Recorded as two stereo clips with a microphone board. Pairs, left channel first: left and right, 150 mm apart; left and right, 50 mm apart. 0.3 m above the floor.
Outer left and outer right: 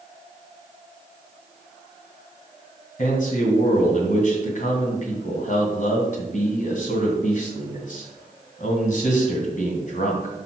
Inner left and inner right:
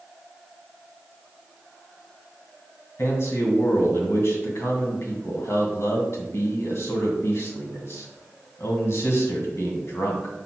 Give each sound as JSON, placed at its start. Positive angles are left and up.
{"t": 3.0, "sound": "a man speaking", "side_deg": 60, "distance_m": 2.0}